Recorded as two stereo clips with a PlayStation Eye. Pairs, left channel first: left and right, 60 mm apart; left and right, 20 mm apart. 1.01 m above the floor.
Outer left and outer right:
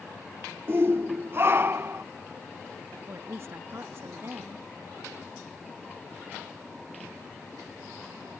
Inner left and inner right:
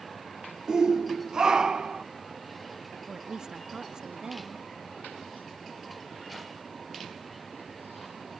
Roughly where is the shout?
Right.